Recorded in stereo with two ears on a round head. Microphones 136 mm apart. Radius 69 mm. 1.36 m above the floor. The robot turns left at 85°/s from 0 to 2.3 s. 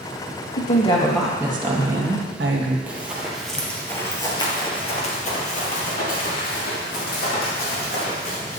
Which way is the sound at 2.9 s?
10° right (ahead or behind).